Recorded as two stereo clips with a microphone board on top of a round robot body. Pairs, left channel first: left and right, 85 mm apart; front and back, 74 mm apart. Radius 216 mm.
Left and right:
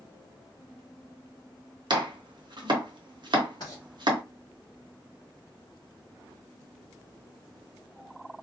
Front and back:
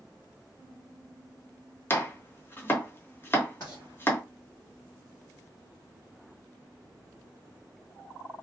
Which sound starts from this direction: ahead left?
Writing, at 3.6 s.